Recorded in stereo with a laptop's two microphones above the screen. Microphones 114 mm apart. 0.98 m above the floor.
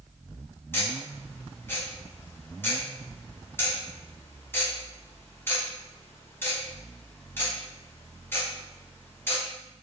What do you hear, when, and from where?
0.7 s ticking: 20° left (ahead or behind), 1.1 m